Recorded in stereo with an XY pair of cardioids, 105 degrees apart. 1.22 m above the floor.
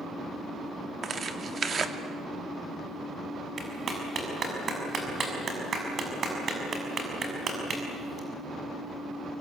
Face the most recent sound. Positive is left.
turn(degrees=-40)